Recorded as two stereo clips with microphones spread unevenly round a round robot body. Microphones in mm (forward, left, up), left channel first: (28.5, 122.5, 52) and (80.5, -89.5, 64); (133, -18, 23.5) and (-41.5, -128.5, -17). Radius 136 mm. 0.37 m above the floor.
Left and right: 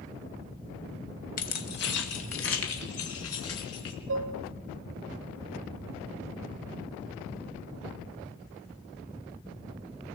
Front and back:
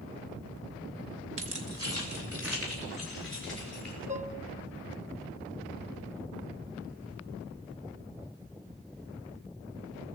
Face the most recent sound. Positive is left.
turn(degrees=-95)